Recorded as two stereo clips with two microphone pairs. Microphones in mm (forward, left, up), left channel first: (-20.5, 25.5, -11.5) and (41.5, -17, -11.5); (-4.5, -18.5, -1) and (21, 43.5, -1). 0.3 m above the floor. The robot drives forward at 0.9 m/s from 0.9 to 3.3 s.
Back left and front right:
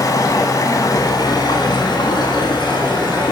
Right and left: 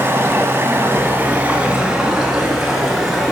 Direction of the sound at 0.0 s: 115° left.